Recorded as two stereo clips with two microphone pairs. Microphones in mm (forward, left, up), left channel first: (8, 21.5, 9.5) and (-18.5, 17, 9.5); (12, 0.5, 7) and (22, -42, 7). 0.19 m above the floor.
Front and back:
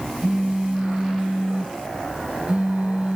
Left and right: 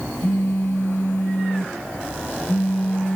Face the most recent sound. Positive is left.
turn(degrees=135)